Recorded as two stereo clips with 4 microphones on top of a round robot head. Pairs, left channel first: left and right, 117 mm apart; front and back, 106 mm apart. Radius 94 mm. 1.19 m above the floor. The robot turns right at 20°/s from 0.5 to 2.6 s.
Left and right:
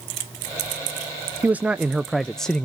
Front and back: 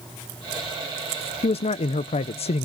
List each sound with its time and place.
1.4 s a man speaking: 15° right, 0.6 m; by 2.6 s 10° left, 0.6 m